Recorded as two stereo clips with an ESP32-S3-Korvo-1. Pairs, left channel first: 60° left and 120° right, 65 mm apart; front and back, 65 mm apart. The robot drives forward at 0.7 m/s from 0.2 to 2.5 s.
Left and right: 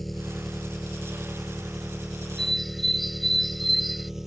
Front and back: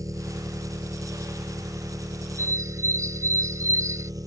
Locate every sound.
0.0 s an engine running: 150° left; by 4.3 s 155° left
2.4 s a bird: 145° left; by 4.1 s 150° left